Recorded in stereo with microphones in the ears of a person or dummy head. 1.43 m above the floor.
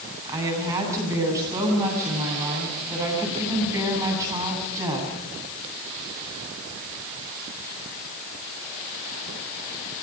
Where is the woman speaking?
15° right (ahead or behind), 10 m.